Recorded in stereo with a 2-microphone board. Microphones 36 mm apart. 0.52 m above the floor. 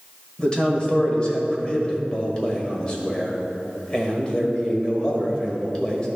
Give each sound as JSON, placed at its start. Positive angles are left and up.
{"t": 0.4, "sound": "a man speaking", "side_deg": 25, "distance_m": 1.7}